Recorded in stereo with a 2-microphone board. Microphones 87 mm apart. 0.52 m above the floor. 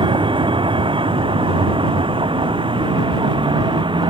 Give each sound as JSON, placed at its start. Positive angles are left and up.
{"t": 0.0, "sound": "a vehicle", "side_deg": -75}